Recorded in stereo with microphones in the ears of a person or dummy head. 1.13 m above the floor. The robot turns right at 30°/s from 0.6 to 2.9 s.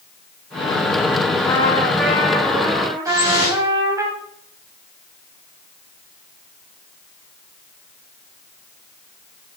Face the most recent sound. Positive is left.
turn(degrees=-25)  # may be behind; listen again after turning